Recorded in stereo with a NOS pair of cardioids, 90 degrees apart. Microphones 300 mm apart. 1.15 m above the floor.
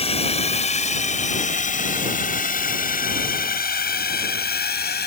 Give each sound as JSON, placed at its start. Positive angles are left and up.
{"t": 0.0, "sound": "a drone", "azimuth_deg": 20}